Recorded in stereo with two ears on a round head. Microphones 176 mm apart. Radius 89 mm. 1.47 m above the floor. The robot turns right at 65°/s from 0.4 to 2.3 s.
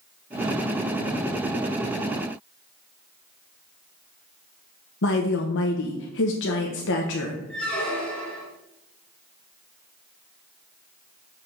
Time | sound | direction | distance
5.0 | a woman speaking | 60° left (ahead or behind) | 0.8 m
7.5 | a squeak | 5° left (ahead or behind) | 1.7 m